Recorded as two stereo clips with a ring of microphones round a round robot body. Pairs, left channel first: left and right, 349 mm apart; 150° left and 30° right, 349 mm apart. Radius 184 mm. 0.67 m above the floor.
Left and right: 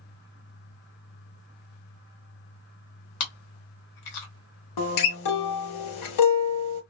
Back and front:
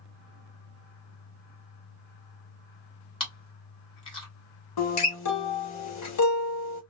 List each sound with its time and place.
3.2 s chewing: 75° left, 1.5 m
4.8 s a guitar: 110° left, 0.7 m